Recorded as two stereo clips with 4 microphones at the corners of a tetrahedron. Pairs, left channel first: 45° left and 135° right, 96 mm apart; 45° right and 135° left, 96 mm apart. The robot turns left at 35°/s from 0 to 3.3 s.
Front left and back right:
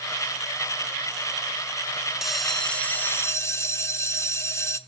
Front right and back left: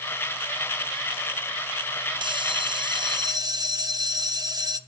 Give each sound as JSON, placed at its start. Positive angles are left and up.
{"t": 2.2, "sound": "a bell", "azimuth_deg": 140, "distance_m": 0.7}